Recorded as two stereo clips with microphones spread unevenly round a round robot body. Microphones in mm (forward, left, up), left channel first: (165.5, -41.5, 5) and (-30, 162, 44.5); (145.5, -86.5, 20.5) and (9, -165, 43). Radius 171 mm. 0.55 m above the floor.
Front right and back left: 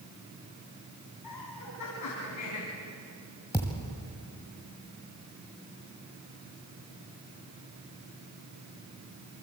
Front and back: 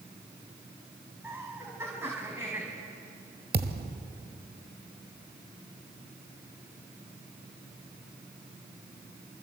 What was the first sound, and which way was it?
Laughter, 75° right.